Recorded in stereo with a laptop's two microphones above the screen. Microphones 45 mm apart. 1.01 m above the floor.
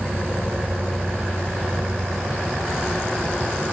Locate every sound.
0.0 s an insect: 65° right (ahead or behind)